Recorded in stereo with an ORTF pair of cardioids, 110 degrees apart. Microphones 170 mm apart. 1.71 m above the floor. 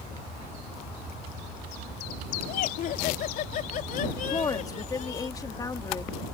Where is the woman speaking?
20° left.